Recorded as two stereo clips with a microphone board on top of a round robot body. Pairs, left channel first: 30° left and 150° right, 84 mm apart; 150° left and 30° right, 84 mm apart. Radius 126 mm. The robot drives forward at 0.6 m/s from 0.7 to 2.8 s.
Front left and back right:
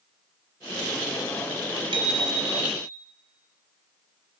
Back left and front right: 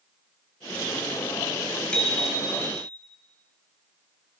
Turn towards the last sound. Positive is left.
turn(degrees=-140)